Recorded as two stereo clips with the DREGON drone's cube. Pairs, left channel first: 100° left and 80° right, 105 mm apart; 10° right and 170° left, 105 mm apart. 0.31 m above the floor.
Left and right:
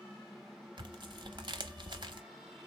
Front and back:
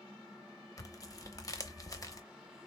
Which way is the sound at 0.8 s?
60° right.